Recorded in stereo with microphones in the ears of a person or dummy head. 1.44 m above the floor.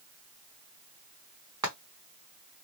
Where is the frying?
15° right (ahead or behind), 1.6 m.